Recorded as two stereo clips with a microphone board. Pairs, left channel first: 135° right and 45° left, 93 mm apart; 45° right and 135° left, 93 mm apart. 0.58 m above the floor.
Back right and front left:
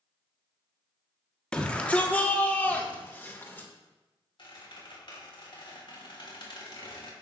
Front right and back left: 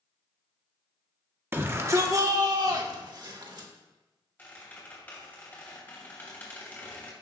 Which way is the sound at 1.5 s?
160° left.